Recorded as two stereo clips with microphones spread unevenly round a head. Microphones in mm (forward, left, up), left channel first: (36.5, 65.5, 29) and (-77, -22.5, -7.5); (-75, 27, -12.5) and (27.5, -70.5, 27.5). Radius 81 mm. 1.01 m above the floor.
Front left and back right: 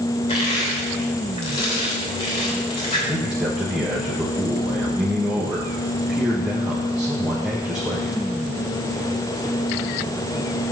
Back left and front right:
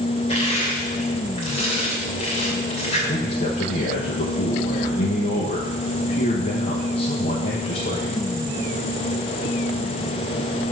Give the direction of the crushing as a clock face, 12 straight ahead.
9 o'clock.